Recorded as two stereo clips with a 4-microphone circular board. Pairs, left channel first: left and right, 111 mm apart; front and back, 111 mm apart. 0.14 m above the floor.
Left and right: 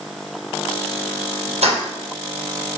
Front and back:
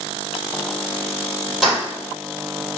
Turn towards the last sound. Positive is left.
turn(degrees=-95)